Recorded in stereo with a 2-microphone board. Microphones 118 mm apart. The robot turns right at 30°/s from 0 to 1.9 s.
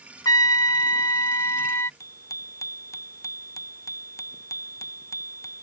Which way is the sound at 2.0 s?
25° left (ahead or behind).